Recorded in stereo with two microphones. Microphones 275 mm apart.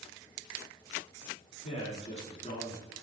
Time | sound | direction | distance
1.6 | a man speaking | 25° left (ahead or behind) | 1.3 m